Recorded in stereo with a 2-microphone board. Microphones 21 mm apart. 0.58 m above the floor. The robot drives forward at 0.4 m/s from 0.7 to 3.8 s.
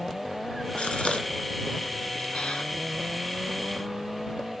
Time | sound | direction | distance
0.8 | a gasp | 75° left (ahead or behind) | 1.8 m